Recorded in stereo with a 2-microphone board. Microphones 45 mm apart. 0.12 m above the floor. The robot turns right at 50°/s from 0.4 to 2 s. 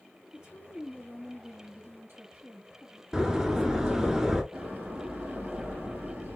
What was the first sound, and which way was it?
A woman speaking, 160° right.